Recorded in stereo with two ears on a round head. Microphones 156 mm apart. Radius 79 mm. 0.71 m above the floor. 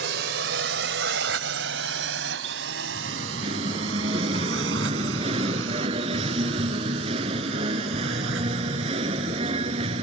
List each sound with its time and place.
0.0 s a drone: 70° right (ahead or behind); by 10.0 s 85° right
3.0 s singing: 30° right (ahead or behind)